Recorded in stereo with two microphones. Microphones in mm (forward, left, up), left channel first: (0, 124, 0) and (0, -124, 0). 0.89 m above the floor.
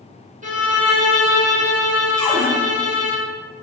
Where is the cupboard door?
10° left (ahead or behind), 1.8 m.